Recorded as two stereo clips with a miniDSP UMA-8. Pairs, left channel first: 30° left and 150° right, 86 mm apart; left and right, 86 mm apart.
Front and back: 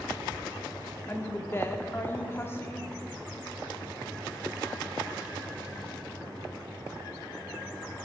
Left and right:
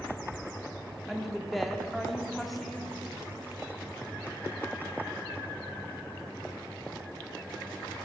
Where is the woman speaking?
Straight ahead, 0.7 m.